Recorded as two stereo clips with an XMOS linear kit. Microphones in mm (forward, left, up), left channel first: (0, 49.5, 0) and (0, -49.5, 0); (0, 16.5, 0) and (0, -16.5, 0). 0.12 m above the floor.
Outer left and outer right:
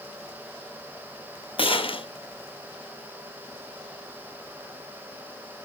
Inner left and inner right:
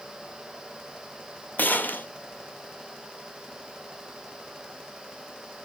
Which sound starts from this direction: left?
A gunshot, at 1.6 s.